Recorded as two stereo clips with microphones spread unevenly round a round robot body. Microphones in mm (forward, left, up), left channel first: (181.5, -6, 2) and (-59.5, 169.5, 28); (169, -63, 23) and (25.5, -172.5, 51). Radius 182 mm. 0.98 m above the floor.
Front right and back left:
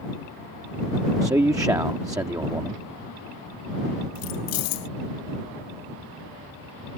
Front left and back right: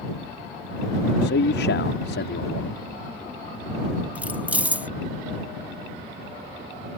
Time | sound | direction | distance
1.2 | a man speaking | 65° left | ?
4.2 | keys jangling | 60° right | ?